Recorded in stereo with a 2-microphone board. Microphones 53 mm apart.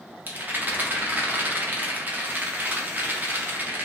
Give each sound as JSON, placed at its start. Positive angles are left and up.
{"t": 0.3, "sound": "a rattle", "side_deg": -30, "distance_m": 0.6}